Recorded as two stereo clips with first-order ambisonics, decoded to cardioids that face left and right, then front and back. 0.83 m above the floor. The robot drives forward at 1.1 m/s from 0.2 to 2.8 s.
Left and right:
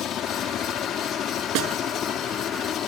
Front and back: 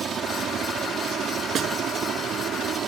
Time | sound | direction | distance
0.0 | a helicopter | 130° left | ?
1.6 | a snare drum | 120° right | ?